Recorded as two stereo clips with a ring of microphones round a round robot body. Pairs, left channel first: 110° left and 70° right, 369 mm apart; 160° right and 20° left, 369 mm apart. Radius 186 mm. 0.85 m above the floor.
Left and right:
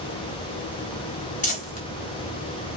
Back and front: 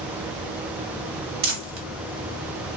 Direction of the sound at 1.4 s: 50° left.